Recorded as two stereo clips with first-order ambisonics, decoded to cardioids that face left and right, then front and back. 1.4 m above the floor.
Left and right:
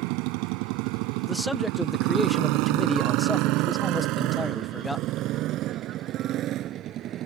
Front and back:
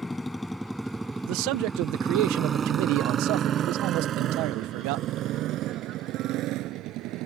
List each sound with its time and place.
0.0 s a motorcycle: 80° right; by 7.3 s 145° right
1.3 s a man speaking: 175° left